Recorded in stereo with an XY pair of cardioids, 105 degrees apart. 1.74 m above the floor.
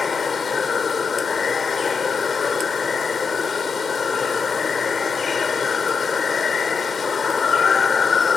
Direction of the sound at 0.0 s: 40° left.